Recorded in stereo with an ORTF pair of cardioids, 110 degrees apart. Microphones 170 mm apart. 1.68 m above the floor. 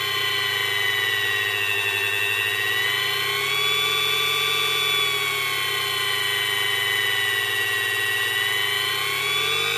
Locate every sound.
0.0 s a machine running: straight ahead